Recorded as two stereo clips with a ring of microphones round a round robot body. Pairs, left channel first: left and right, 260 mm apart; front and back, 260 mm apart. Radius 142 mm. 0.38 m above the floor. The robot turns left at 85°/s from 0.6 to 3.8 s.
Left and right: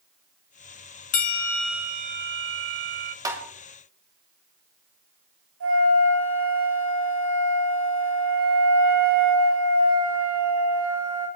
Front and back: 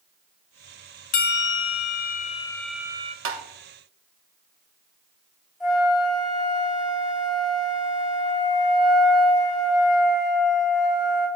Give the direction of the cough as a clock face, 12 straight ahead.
No cough in this recording.